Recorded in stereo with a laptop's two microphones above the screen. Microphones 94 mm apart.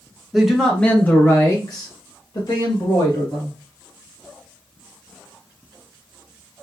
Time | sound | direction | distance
0.3 | a man speaking | 5° right (ahead or behind) | 0.9 m